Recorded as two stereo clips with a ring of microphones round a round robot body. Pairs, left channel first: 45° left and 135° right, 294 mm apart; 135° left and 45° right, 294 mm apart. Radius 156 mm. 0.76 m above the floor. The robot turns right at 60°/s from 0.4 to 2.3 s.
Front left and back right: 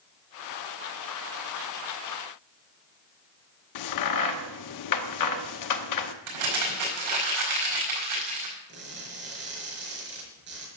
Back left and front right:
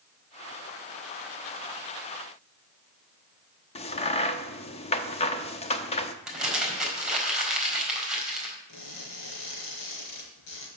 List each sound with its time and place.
3.8 s a crack: 65° left, 0.9 m
6.3 s crumpling: 135° right, 4.5 m
8.7 s crushing: 170° left, 4.5 m